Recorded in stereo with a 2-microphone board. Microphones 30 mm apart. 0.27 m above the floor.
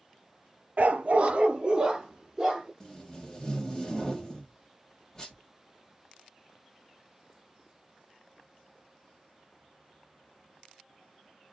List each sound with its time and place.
0.8 s a dog barking: 60° right (ahead or behind), 0.5 m; by 2.7 s 20° right (ahead or behind), 1.3 m
2.8 s tape being pulled: 15° left (ahead or behind), 1.3 m